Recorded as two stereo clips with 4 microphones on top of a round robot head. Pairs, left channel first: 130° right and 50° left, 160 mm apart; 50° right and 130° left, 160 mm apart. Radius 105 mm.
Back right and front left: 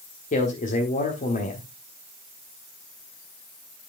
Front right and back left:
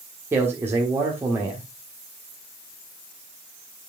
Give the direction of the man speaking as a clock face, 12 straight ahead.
5 o'clock.